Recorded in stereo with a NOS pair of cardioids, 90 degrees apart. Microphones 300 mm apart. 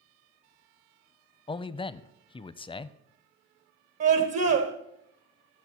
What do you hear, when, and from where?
1.5 s a man speaking: 20° left, 0.5 m
4.0 s a scream: 60° right, 1.1 m